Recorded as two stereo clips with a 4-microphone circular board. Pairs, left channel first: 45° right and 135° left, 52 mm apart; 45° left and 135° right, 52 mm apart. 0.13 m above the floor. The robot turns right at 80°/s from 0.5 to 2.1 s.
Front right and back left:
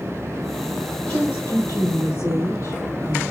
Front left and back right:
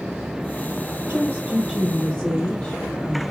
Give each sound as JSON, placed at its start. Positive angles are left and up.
{"t": 1.1, "sound": "a woman speaking", "azimuth_deg": -110, "distance_m": 3.0}